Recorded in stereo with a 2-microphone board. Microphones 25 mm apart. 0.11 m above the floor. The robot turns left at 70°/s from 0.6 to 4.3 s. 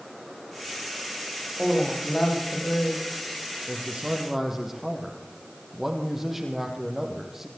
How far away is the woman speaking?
About 7.5 m.